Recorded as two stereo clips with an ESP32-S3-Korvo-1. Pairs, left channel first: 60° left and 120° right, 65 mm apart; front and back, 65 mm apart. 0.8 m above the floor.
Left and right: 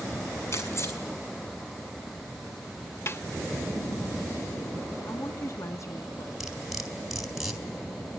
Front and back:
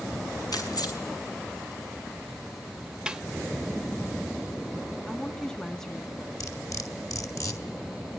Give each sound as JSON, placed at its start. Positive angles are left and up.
{"t": 0.5, "sound": "keys jangling", "azimuth_deg": 10, "distance_m": 5.5}
{"t": 3.1, "sound": "a snare drum", "azimuth_deg": 105, "distance_m": 0.8}
{"t": 5.1, "sound": "a woman speaking", "azimuth_deg": 80, "distance_m": 1.6}
{"t": 6.4, "sound": "cutlery clinking", "azimuth_deg": -35, "distance_m": 3.5}